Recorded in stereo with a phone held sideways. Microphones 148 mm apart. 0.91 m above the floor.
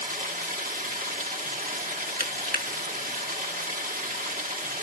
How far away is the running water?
About 2 m.